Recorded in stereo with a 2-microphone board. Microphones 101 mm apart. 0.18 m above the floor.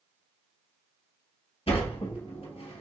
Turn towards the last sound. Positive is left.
turn(degrees=70)  # may be behind; listen again after turning